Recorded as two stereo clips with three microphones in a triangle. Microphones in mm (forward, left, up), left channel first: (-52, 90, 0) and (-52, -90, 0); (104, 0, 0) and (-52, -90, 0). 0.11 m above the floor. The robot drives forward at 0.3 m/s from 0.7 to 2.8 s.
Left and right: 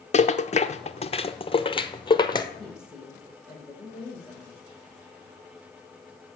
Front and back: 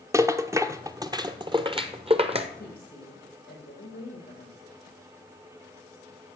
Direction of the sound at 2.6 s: 5° right.